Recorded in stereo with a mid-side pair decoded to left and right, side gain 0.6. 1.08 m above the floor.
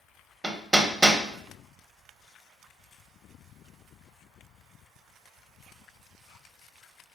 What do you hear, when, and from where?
0.4 s hammering: 10° right, 0.6 m